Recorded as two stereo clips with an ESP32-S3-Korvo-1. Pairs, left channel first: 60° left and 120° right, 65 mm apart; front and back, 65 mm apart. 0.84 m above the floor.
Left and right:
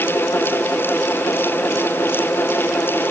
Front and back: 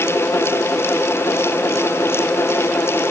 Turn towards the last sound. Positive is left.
No sound to turn to.